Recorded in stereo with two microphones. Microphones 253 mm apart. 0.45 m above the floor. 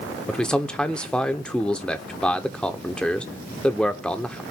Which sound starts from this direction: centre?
A man speaking, at 0.3 s.